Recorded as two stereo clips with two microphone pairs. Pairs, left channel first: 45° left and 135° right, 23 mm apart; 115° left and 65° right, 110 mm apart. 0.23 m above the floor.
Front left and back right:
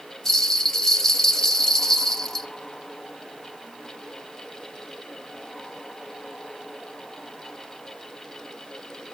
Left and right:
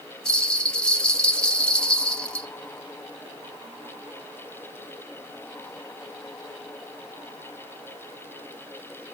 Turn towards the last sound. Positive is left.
turn(degrees=45)